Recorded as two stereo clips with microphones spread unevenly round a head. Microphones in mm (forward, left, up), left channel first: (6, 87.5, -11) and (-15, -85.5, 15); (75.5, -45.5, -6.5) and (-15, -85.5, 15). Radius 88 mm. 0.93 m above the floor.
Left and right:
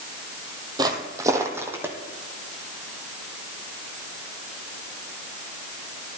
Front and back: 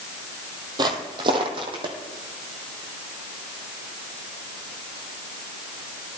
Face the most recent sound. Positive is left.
turn(degrees=-170)